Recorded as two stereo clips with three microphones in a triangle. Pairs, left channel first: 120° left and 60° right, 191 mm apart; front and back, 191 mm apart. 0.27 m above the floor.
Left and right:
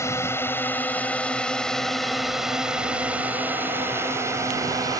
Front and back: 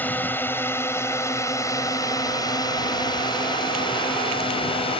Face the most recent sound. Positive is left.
turn(degrees=-10)